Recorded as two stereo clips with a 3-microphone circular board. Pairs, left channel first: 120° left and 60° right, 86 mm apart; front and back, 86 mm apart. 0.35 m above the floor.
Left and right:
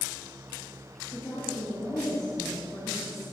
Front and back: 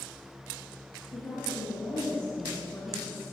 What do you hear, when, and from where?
1.1 s a woman speaking: 60° left, 7 m